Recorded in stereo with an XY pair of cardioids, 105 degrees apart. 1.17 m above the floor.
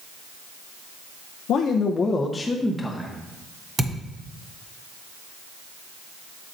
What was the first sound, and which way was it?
A man speaking, 70° left.